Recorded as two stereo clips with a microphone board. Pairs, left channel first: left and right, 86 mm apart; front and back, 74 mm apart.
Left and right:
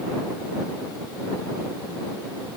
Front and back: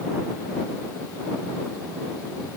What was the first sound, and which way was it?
Only background noise.